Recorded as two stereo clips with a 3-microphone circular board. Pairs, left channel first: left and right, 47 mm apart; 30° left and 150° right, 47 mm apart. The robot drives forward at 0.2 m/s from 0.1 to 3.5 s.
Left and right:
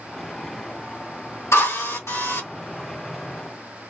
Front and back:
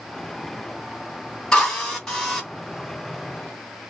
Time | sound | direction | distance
1.5 | a drill | 105° left | 3 m